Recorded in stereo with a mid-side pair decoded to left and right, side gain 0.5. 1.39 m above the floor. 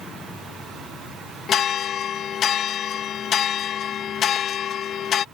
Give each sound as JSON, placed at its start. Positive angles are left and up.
{"t": 1.5, "sound": "a bell", "azimuth_deg": 55}